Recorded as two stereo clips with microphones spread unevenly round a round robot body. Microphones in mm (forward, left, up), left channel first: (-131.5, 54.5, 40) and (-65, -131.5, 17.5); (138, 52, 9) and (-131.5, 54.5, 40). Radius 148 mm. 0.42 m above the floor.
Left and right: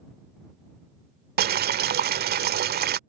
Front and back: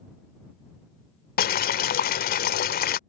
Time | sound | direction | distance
1.4 | boiling | 50° right | ?